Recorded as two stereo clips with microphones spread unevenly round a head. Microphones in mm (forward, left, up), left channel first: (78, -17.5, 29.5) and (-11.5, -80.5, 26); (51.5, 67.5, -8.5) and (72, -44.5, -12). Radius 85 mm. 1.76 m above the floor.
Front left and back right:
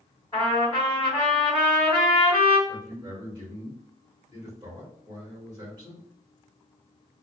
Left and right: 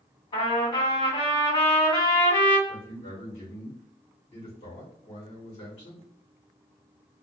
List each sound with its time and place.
0.3 s a trumpet: 95° left, 1.9 m
2.7 s a man speaking: 145° left, 1.4 m